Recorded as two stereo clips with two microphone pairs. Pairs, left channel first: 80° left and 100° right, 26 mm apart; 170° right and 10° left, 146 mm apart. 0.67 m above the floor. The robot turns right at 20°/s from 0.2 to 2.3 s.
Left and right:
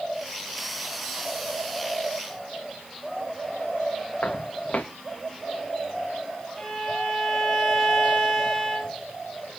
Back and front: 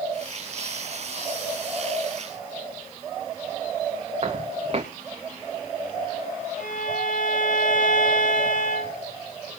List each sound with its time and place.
4.2 s footsteps: 55° left, 3.5 m
6.6 s a violin: 165° left, 5.5 m